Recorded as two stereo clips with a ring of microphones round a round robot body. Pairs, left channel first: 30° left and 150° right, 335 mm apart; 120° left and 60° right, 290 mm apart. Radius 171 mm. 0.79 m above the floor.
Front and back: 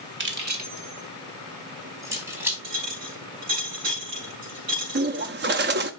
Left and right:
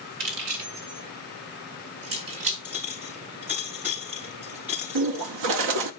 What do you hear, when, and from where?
0.2 s keys jangling: 90° right, 2 m; by 2.5 s 65° right, 4 m
2.6 s a clink: 145° right, 5 m
5.0 s a bird: 90° right, 0.8 m